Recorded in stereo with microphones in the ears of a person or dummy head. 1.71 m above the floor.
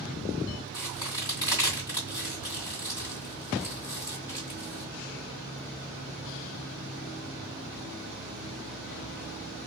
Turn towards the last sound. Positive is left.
turn(degrees=15)  # may be behind; listen again after turning